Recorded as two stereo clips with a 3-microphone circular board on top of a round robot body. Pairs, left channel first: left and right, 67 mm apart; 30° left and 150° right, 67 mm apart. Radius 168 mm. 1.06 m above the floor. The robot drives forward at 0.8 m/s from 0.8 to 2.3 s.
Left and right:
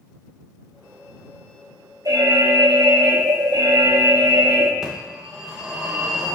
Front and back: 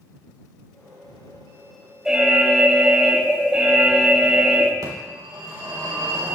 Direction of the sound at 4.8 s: 170° right.